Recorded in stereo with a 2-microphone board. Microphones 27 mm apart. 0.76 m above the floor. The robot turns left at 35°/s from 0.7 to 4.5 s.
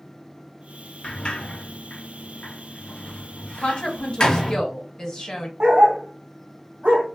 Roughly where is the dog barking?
Right.